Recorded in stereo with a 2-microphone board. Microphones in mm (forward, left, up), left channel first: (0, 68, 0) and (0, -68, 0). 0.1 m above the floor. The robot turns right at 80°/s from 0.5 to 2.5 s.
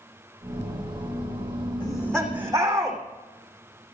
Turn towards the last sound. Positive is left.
turn(degrees=-155)